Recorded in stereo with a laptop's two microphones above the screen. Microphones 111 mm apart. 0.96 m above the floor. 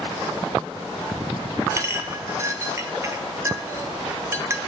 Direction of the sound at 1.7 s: 25° right (ahead or behind).